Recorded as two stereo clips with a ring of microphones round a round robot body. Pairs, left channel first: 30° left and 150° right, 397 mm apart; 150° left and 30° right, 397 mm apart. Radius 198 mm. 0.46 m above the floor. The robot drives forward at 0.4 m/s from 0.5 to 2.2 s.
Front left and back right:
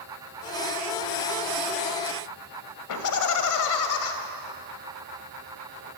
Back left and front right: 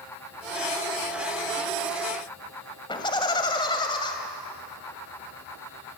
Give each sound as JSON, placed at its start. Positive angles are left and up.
{"t": 2.9, "sound": "laughter", "azimuth_deg": 70, "distance_m": 2.5}